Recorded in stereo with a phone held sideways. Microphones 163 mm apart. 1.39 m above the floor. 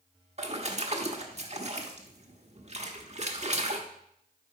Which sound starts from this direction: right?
A splash, at 0.4 s.